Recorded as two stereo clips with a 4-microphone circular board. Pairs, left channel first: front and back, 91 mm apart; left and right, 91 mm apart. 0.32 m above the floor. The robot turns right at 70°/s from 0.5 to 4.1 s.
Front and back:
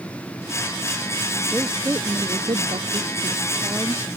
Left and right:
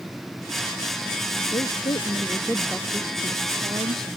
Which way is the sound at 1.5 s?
90° left.